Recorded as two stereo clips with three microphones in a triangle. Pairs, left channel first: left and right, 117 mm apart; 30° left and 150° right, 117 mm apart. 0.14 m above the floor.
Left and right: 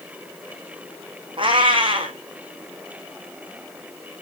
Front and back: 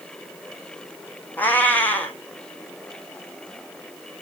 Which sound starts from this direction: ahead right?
A cat meowing, at 1.4 s.